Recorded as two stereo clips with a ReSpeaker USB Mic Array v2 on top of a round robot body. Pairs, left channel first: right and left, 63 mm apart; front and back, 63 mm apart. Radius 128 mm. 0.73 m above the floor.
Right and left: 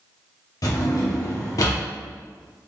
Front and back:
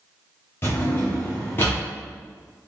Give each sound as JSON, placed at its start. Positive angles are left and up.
{"t": 0.6, "sound": "a drawer", "azimuth_deg": -55, "distance_m": 0.9}